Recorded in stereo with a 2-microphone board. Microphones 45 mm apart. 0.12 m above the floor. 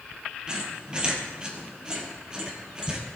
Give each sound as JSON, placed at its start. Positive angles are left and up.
{"t": 0.5, "sound": "a squeak", "side_deg": -20, "distance_m": 2.0}